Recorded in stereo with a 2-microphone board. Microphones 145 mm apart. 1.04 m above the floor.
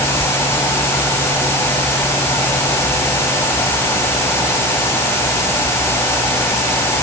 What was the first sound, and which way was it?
Only background noise.